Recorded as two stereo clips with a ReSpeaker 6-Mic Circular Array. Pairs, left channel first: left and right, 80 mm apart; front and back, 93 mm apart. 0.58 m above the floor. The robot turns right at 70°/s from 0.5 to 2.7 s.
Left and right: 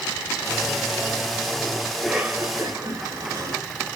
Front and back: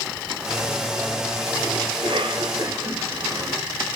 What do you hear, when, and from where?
1.9 s a cough: 170° left, 2 m; by 3.6 s 135° right, 2 m